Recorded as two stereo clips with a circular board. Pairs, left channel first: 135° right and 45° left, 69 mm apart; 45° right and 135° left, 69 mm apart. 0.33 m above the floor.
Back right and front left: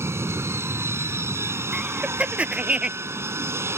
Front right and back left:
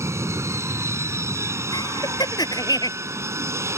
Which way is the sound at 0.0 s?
90° left.